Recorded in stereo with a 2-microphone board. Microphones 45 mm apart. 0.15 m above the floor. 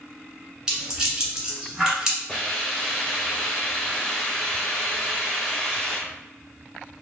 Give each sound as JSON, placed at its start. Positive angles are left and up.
{"t": 0.7, "sound": "a rattle", "side_deg": -15, "distance_m": 1.6}
{"t": 2.3, "sound": "a hiss", "side_deg": 5, "distance_m": 1.5}